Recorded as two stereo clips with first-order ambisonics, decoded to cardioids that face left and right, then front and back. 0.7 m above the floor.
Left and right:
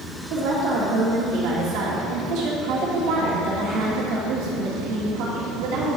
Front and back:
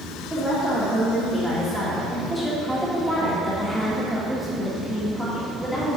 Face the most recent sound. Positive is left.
turn(degrees=-90)